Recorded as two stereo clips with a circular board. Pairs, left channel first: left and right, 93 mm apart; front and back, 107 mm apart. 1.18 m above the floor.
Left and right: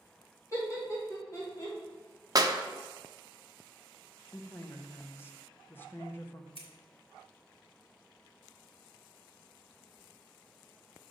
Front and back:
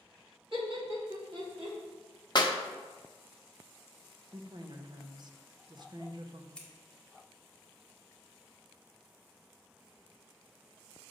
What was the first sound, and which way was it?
Laughter, 145° left.